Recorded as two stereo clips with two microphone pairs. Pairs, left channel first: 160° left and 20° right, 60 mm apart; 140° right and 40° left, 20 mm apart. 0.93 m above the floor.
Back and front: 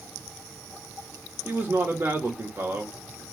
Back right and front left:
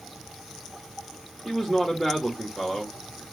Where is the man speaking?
70° right, 1.2 m.